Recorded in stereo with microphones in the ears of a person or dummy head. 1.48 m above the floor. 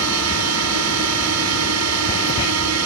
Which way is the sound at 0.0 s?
75° right (ahead or behind).